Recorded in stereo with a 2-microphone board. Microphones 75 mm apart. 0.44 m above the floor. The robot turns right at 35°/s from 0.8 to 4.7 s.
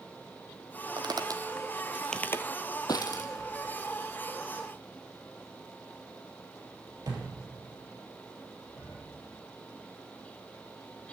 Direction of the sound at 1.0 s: 70° right (ahead or behind).